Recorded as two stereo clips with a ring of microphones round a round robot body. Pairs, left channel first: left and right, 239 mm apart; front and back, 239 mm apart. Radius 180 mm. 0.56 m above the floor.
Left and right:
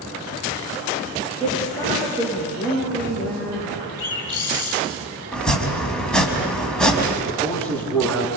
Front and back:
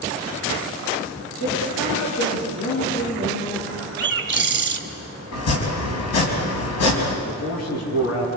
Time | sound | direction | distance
1.4 | a woman speaking | 20° left | 9.5 m
4.0 | a bird | 140° left | 3.5 m
5.3 | chopping | 5° left | 4 m
7.2 | a man speaking | 5° left | 8.5 m